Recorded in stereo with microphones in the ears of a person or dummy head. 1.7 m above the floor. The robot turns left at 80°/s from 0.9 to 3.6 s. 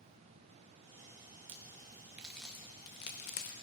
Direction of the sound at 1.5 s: 35° right (ahead or behind).